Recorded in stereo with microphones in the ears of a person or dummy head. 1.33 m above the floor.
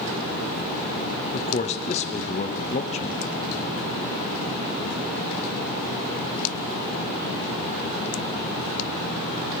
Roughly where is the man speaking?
Left.